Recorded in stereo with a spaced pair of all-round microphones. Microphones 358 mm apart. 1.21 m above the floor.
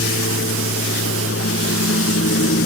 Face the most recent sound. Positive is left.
turn(degrees=35)  # may be behind; listen again after turning